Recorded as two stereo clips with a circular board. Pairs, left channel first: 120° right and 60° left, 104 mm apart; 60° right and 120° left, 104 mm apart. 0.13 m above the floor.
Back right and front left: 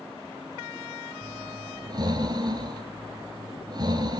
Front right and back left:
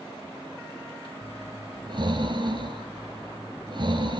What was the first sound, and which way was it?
Breathing, 95° left.